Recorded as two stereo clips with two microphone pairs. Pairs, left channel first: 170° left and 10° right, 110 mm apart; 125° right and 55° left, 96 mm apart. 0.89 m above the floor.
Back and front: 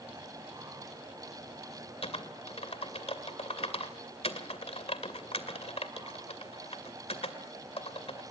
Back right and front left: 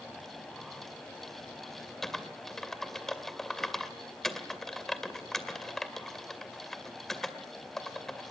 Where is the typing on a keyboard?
150° left, 2 m.